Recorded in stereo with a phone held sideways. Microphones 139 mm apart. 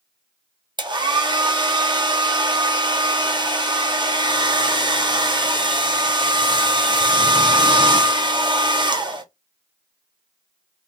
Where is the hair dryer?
35° right (ahead or behind), 0.6 m.